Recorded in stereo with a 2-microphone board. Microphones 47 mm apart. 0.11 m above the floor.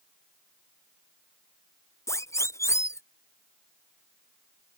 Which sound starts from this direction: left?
A siren, at 2.1 s.